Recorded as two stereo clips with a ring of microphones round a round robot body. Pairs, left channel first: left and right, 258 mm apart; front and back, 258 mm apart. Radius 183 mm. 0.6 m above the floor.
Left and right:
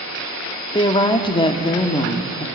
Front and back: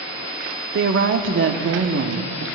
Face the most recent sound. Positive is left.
turn(degrees=160)